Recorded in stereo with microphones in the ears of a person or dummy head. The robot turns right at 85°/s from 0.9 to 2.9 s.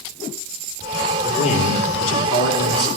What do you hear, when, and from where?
1.2 s a man speaking: 15° left, 3.5 m; by 2.9 s 155° left, 3.5 m